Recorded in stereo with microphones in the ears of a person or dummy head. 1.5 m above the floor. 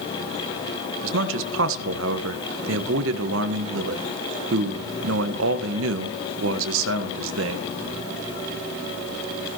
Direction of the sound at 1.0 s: 75° right (ahead or behind).